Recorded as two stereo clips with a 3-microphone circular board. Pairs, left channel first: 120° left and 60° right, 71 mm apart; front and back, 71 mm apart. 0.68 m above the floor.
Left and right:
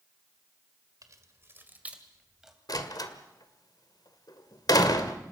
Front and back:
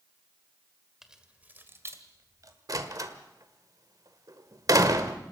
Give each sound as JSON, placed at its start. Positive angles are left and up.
{"t": 1.0, "sound": "keys jangling", "azimuth_deg": -95, "distance_m": 1.7}
{"t": 2.7, "sound": "a door slam", "azimuth_deg": 145, "distance_m": 1.7}